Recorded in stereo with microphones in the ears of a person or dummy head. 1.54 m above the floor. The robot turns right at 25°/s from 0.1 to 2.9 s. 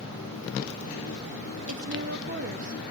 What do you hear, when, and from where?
1.7 s a woman speaking: 65° right (ahead or behind), 2 m; by 2.8 s 40° right (ahead or behind), 2 m